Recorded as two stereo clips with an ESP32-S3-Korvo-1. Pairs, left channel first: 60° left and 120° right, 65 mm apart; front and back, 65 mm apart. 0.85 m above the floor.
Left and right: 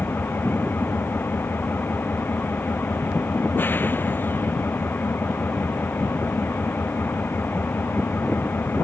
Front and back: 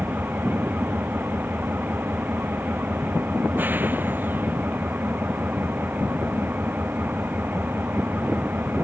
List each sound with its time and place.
0.0 s an engine running: 120° left